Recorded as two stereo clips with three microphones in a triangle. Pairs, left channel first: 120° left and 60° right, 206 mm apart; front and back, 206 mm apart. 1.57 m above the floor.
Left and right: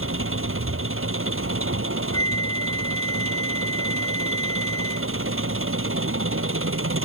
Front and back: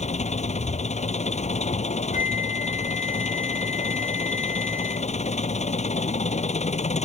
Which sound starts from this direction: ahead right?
An engine running, at 0.0 s.